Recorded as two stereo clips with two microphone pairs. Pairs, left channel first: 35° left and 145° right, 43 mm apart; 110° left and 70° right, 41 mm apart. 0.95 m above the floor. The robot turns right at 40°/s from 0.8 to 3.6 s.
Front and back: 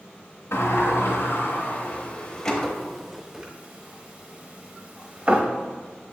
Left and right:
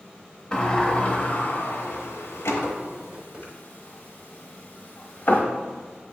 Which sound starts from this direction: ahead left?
A sliding door, at 0.5 s.